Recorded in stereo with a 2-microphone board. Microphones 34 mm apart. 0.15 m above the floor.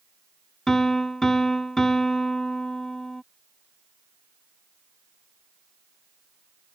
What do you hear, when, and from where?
0.7 s a piano: 15° left (ahead or behind)